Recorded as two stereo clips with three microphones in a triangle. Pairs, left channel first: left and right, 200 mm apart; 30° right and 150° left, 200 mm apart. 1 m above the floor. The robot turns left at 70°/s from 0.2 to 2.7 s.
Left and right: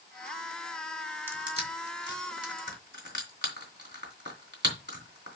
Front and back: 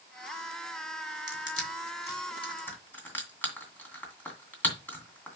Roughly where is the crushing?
Ahead.